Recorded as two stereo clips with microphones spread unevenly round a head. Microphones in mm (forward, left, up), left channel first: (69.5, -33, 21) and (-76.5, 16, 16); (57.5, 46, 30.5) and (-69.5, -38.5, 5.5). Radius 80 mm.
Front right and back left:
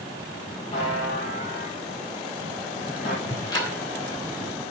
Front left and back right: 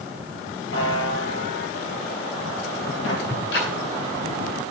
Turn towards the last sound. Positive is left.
turn(degrees=50)